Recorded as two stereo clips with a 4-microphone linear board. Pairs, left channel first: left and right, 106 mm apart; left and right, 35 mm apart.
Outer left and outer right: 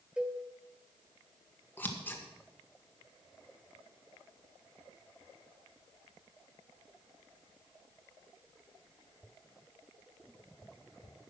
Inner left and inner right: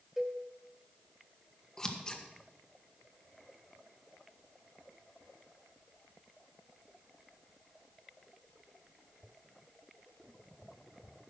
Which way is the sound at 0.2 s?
10° right (ahead or behind).